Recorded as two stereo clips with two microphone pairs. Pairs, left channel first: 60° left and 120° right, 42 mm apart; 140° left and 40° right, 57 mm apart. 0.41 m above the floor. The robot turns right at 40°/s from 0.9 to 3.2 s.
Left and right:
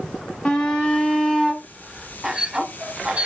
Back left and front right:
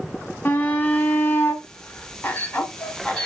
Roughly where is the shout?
Behind left.